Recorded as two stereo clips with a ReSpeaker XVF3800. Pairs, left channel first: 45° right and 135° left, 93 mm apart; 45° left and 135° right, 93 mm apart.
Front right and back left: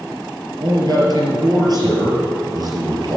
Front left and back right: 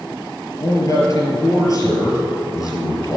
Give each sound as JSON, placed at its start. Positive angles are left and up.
{"t": 0.6, "sound": "a man speaking", "azimuth_deg": 95, "distance_m": 5.0}